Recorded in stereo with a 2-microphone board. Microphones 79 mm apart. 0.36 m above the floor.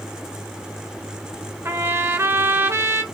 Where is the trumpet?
30° right (ahead or behind), 1.2 m.